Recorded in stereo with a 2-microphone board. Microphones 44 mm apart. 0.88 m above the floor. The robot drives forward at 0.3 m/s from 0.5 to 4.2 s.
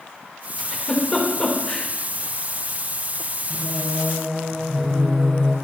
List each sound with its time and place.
0.6 s a giggle: 25° left (ahead or behind), 3 m; by 1.9 s 20° left (ahead or behind), 3.5 m
3.5 s singing: 5° left (ahead or behind), 4 m